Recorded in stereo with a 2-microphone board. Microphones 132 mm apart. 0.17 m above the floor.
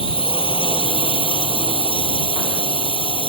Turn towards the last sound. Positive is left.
turn(degrees=40)  # may be behind; listen again after turning